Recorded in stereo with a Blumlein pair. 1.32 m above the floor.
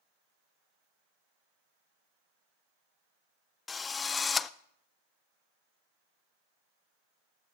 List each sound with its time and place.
3.7 s a drill: 15° left, 0.5 m